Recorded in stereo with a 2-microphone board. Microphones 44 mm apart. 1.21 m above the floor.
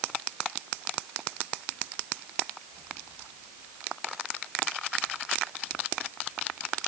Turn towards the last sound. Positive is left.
No sound to turn to.